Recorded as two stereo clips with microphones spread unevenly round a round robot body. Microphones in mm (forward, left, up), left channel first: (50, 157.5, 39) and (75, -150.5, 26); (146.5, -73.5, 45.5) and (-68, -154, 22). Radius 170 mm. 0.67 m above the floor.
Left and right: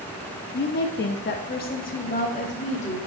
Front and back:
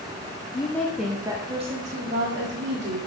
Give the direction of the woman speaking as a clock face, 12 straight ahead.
9 o'clock.